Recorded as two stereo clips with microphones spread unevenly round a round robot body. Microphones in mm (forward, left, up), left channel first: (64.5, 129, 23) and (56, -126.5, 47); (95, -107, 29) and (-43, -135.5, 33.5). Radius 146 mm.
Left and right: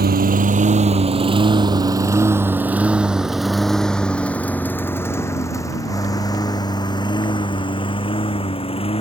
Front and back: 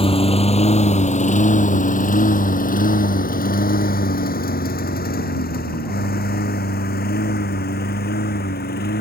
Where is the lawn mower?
40° right; by 9.0 s 20° left.